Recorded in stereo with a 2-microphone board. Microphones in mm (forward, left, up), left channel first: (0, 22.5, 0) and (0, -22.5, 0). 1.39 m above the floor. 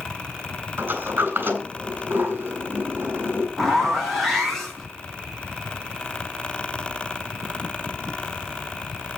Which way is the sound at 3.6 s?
5° left (ahead or behind).